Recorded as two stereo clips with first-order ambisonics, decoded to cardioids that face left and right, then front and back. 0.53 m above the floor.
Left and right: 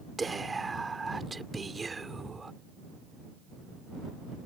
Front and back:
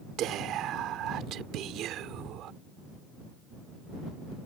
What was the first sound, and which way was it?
Whispering, 165° right.